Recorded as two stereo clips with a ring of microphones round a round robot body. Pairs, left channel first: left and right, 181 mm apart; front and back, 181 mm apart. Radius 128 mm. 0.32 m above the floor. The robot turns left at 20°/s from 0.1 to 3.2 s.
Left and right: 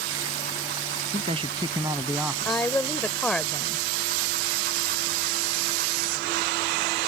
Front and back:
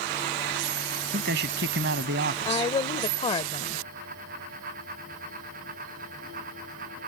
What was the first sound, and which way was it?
A man speaking, 150° right.